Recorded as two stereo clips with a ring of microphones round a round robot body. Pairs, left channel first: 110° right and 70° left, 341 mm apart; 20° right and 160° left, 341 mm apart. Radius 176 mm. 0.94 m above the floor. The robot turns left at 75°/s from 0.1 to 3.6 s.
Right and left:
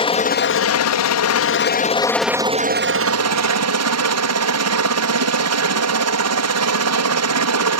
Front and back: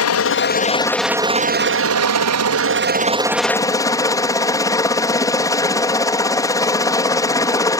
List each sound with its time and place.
0.0 s a helicopter: 45° right; by 7.8 s 55° left